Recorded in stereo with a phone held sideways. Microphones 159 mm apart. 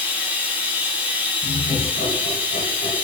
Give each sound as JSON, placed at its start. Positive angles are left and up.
{"t": 0.0, "sound": "running water", "side_deg": -10, "distance_m": 0.8}
{"t": 1.4, "sound": "laughter", "side_deg": 80, "distance_m": 1.4}